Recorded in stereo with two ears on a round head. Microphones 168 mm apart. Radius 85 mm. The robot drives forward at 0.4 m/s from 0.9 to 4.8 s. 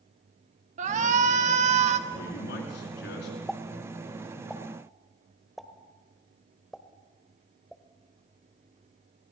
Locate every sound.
0.8 s a shout: 40° right (ahead or behind), 1.3 m; by 2.0 s 35° right (ahead or behind), 1.4 m
2.1 s a man speaking: 70° left (ahead or behind), 6 m; by 3.4 s 65° left (ahead or behind), 6 m
3.5 s a pop: centre (ahead or behind), 0.8 m